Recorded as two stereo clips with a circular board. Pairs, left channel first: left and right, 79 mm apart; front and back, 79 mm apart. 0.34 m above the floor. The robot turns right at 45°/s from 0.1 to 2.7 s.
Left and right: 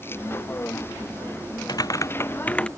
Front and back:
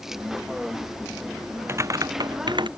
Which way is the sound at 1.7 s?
125° left.